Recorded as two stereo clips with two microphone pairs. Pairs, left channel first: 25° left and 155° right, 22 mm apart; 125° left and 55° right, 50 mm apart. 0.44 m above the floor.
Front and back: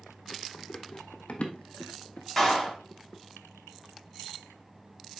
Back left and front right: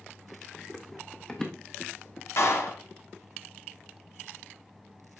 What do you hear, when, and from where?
0.5 s running footsteps: 40° left, 1.7 m; by 2.3 s 65° left, 1.1 m
2.4 s a clap: 105° left, 3 m